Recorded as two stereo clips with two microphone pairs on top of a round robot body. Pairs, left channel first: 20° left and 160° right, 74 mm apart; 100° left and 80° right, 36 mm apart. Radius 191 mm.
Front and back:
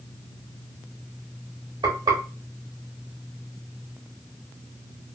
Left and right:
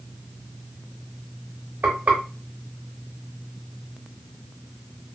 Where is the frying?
120° right, 0.7 m.